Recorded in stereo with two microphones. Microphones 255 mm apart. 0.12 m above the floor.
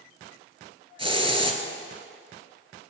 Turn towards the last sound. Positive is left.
turn(degrees=-20)  # may be behind; listen again after turning